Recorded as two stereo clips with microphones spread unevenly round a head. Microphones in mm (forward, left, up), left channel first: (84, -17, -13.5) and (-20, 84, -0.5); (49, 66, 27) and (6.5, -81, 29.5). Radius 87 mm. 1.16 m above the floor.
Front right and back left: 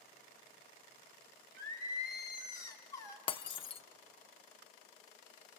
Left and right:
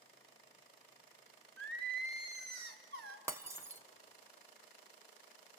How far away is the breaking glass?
About 0.6 m.